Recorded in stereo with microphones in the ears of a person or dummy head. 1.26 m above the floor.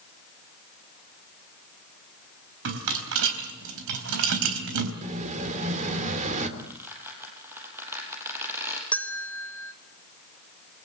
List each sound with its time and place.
2.6 s a rattle: 75° right (ahead or behind), 4 m
5.0 s an explosion: 35° right (ahead or behind), 3 m
6.6 s a squeak: 15° right (ahead or behind), 5.5 m
8.9 s a bell: 5° left (ahead or behind), 1.0 m